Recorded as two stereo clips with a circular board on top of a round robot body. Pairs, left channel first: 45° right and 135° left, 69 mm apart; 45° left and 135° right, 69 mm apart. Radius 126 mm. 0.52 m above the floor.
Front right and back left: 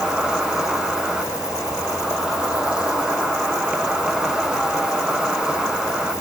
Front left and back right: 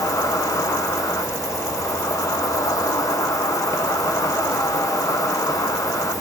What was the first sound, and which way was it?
An insect, 60° left.